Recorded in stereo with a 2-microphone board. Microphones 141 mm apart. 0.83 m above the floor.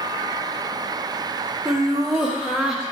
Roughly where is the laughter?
Centre.